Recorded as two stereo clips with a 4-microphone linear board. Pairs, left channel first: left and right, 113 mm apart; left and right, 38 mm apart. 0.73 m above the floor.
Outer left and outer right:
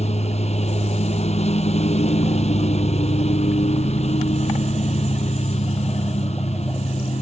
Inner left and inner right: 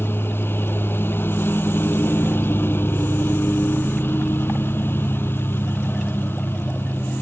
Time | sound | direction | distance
0.0 | a lawn mower | 85° left | ?